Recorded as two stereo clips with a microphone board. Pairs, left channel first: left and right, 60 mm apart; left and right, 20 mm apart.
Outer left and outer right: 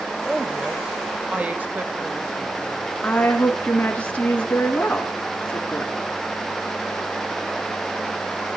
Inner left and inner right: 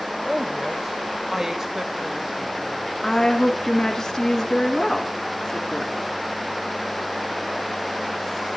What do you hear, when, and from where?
0.2 s a woman speaking: centre (ahead or behind), 1.3 m; by 3.0 s 50° right (ahead or behind), 1.7 m
3.0 s a woman speaking: 25° left (ahead or behind), 2.5 m